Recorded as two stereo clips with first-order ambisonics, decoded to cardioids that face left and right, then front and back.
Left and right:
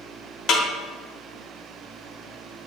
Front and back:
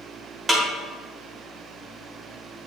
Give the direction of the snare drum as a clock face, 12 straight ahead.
9 o'clock.